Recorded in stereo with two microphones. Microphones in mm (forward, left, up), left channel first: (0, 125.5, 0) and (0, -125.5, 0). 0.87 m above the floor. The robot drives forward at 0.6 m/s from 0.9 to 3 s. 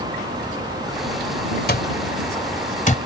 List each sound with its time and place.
1.7 s an alarm clock: 45° left (ahead or behind); by 3.0 s 30° left (ahead or behind)